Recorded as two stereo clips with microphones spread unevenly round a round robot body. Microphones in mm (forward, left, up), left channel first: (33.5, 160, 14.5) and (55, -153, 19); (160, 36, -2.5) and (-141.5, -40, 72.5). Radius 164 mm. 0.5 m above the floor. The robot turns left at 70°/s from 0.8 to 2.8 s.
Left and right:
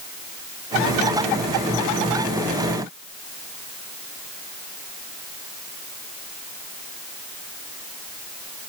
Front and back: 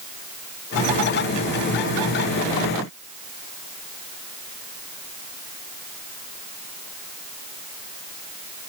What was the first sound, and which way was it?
Only background noise.